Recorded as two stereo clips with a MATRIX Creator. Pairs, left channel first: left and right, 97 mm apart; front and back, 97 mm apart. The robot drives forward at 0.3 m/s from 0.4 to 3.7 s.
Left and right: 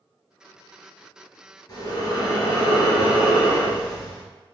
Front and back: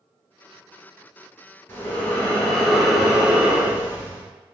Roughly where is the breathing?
Ahead left.